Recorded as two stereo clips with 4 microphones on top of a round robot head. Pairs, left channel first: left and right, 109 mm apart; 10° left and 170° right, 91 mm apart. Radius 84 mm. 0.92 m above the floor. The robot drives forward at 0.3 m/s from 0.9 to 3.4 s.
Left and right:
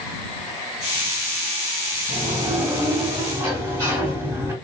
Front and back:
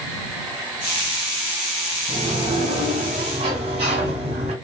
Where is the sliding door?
155° right, 1.5 m; by 4.5 s 160° right, 1.8 m.